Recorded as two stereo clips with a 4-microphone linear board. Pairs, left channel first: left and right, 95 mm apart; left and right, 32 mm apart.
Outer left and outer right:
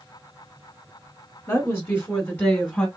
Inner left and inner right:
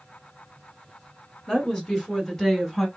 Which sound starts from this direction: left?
A woman speaking, at 1.5 s.